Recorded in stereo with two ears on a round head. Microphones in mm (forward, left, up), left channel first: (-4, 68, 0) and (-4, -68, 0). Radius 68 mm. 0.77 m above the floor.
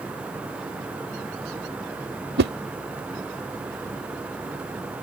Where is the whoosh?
70° right (ahead or behind).